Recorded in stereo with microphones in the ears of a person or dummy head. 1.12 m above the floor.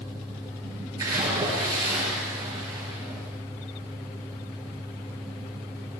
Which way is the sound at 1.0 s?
20° right (ahead or behind).